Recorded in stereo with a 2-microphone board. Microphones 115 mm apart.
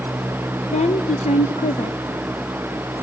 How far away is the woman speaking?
About 0.9 m.